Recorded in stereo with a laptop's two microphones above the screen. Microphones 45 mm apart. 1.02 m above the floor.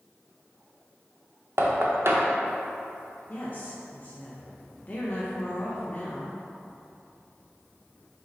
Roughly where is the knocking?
Right.